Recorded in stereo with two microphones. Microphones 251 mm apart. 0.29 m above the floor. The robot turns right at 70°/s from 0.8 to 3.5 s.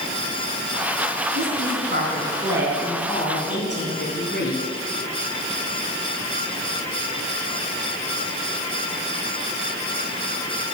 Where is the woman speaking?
100° right, 3.5 m; by 4.6 s 55° left, 3.5 m.